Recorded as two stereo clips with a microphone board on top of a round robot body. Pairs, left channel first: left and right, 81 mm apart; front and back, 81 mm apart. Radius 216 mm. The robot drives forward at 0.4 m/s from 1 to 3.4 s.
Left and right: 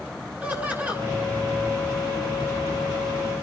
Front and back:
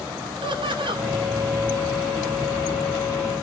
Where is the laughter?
160° right, 8 m.